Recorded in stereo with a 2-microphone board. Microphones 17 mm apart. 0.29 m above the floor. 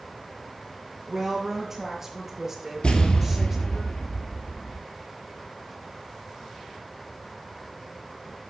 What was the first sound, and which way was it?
A woman speaking, 20° right (ahead or behind).